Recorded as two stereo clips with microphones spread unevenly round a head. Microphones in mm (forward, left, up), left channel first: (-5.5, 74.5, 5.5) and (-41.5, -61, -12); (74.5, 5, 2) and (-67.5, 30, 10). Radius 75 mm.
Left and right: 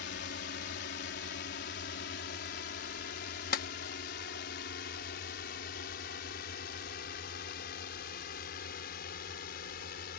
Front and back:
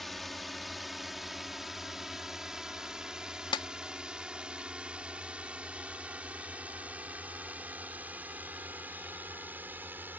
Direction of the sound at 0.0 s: 80° left.